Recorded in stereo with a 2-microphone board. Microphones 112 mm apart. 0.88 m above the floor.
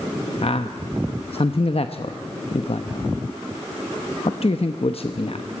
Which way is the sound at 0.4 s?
65° left (ahead or behind).